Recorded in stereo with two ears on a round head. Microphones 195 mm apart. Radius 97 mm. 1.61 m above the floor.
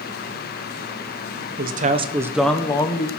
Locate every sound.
1.6 s a man speaking: 50° right (ahead or behind), 1.4 m; by 3.1 s 30° left (ahead or behind), 1.7 m